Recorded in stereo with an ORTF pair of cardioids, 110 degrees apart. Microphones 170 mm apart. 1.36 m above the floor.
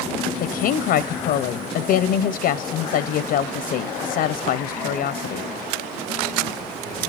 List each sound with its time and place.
0.4 s a woman speaking: 65° left, 0.5 m